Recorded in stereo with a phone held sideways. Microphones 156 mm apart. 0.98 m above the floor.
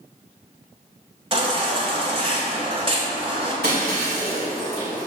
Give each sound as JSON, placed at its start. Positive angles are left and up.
{"t": 1.3, "sound": "a baby crying", "side_deg": -35, "distance_m": 1.5}
{"t": 3.6, "sound": "breaking glass", "side_deg": -80, "distance_m": 2.5}